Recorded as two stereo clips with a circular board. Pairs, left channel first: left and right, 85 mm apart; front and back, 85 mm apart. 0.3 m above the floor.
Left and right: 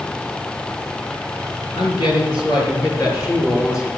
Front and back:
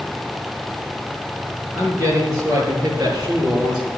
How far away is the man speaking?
About 5 m.